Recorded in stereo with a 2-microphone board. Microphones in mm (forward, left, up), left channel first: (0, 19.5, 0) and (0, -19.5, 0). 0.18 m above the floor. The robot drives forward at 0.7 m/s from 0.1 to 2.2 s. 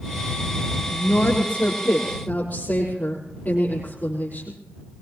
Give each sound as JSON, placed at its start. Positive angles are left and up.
{"t": 0.9, "sound": "a woman speaking", "side_deg": 45, "distance_m": 4.5}